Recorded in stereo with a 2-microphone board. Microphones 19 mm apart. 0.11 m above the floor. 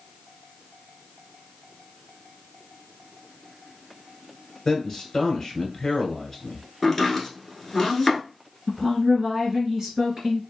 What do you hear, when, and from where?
4.7 s a man speaking: 25° left (ahead or behind), 1.3 m
6.8 s chopping: 10° left (ahead or behind), 1.2 m
8.7 s a woman speaking: 30° right (ahead or behind), 1.9 m